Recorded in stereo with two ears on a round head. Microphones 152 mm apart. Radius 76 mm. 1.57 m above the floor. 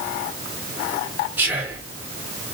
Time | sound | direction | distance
1.4 | whispering | 10° right (ahead or behind) | 1.3 m